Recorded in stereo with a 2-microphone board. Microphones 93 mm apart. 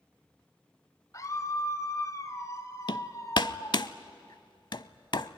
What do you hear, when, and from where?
1.1 s a scream: 35° left (ahead or behind), 1.8 m
2.9 s hammering: 55° left (ahead or behind), 0.6 m